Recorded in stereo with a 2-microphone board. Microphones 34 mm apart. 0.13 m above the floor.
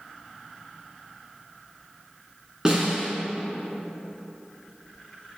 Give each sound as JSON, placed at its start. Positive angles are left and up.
{"t": 2.6, "sound": "a snare drum", "side_deg": -25, "distance_m": 1.7}